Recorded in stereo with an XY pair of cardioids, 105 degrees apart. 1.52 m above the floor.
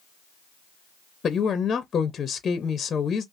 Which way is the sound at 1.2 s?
40° left.